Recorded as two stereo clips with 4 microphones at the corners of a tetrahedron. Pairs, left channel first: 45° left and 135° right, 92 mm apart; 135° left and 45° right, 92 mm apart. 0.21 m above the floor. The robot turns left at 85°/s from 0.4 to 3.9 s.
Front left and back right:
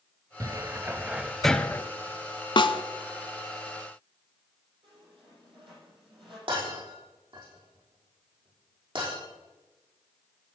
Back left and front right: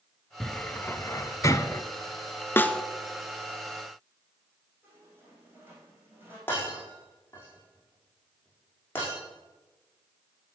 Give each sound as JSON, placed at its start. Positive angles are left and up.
{"t": 0.4, "sound": "a cupboard door", "azimuth_deg": -145, "distance_m": 0.6}
{"t": 2.6, "sound": "a snare drum", "azimuth_deg": 70, "distance_m": 0.7}
{"t": 4.8, "sound": "a squeak", "azimuth_deg": -115, "distance_m": 5.5}
{"t": 6.5, "sound": "breaking glass", "azimuth_deg": -160, "distance_m": 5.5}